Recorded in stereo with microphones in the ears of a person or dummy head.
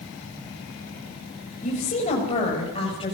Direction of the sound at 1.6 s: 40° left (ahead or behind).